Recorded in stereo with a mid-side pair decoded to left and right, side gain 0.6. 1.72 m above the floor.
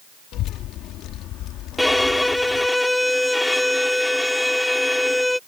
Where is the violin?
5° left.